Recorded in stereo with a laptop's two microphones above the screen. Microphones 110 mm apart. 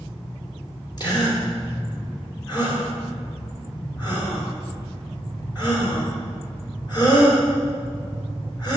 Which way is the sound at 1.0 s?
40° left (ahead or behind).